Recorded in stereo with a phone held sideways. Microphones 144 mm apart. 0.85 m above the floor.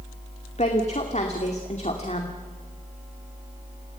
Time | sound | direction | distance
0.6 | a woman speaking | 50° left (ahead or behind) | 2.5 m